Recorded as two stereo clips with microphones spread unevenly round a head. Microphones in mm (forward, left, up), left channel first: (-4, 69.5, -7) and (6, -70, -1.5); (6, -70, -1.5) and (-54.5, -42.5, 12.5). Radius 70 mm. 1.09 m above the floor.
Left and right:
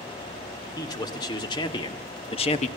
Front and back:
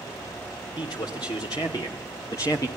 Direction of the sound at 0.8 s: 30° left.